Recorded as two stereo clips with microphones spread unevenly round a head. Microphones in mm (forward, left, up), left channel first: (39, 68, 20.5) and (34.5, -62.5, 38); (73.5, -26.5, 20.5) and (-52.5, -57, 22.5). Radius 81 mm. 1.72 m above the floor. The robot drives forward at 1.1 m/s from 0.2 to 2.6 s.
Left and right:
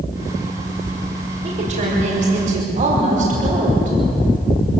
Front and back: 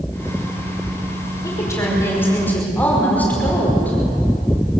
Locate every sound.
1.4 s a woman speaking: 55° right, 6 m; by 4.0 s 65° right, 5.5 m